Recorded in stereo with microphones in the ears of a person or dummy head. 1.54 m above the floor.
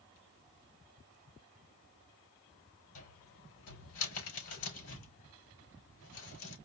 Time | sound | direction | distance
3.0 | a cupboard door | 70° left (ahead or behind) | 4 m